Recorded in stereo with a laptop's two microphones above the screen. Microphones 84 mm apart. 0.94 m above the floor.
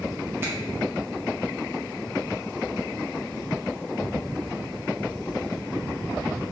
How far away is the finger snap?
About 1.0 m.